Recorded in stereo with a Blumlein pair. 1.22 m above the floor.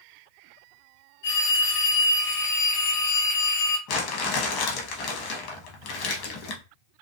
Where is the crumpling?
40° left, 0.8 m.